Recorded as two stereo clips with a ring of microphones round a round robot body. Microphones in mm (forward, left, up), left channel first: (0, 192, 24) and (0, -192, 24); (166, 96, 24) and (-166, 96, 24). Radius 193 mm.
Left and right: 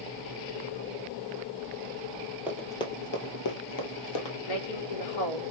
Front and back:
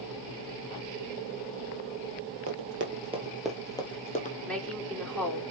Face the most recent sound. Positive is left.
turn(degrees=85)